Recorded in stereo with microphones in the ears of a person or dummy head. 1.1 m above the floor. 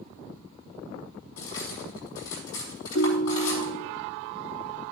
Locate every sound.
1.4 s cutlery clinking: 85° left, 5 m
3.0 s a ringtone: 75° left (ahead or behind), 0.6 m